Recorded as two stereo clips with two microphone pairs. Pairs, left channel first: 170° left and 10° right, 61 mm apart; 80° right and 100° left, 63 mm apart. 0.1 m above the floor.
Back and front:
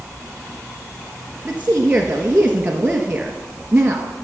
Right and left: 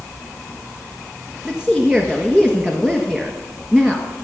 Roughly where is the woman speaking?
Ahead left.